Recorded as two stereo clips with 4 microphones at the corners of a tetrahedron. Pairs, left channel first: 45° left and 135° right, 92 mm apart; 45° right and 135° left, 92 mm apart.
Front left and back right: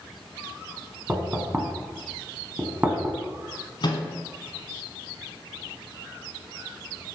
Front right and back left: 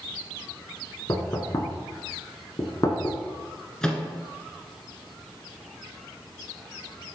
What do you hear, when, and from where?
1.1 s knocking: 70° right, 1.1 m
3.8 s a microwave: 35° left, 1.3 m